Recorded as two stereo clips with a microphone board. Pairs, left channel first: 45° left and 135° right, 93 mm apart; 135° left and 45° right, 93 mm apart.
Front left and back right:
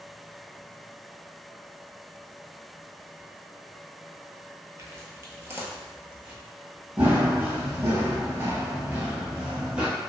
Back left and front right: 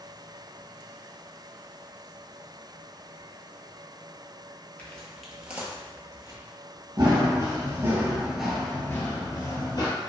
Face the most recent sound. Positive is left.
turn(degrees=150)